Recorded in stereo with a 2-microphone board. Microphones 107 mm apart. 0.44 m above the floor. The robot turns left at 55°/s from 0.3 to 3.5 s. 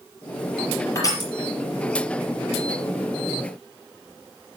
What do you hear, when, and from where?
0.9 s crushing: 25° left (ahead or behind), 4.5 m; by 1.3 s 45° left (ahead or behind), 4.5 m